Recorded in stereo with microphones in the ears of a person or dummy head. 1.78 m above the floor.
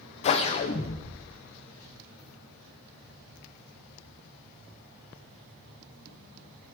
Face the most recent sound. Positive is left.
turn(degrees=35)  # may be behind; listen again after turning